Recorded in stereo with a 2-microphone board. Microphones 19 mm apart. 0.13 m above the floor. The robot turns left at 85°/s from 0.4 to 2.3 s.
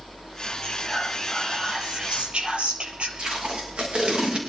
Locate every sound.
0.6 s whispering: 50° left, 3.5 m; by 3.1 s 95° right, 3.5 m
3.2 s tape being pulled: 65° right (ahead or behind), 5.5 m